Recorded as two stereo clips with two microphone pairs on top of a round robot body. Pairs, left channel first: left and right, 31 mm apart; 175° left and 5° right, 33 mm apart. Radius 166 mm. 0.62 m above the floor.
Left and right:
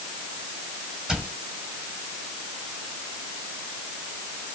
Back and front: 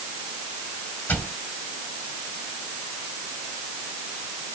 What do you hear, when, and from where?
1.1 s a cupboard door: 155° right, 6 m